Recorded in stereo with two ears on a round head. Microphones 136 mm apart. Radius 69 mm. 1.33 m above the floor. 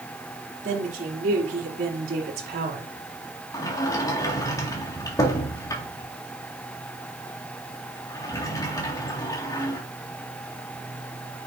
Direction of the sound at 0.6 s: 55° right (ahead or behind).